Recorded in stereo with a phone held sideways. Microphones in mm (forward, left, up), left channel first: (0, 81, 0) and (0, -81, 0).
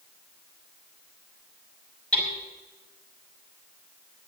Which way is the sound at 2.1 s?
5° left (ahead or behind).